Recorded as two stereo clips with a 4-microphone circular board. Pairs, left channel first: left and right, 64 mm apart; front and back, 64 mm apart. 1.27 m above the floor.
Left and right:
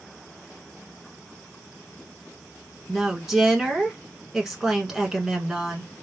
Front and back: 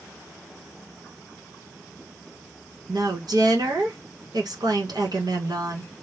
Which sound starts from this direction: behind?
A woman speaking, at 2.9 s.